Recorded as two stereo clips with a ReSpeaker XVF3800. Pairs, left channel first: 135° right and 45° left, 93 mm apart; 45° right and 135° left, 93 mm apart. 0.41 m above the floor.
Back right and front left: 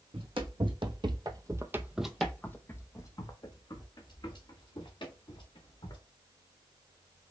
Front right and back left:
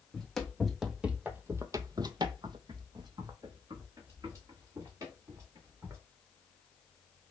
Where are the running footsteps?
40° left, 1.0 m; by 6.0 s 170° right, 2.5 m.